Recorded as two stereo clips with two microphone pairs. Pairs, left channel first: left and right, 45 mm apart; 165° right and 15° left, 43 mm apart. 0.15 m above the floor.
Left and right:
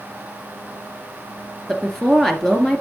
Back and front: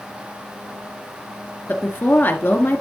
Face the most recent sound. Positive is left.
turn(degrees=175)